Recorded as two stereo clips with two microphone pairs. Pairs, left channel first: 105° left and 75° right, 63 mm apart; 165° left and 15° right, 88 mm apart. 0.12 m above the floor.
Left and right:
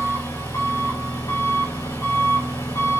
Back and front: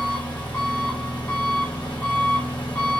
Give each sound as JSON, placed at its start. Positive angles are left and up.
{"t": 0.0, "sound": "an engine running", "azimuth_deg": 85, "distance_m": 5.0}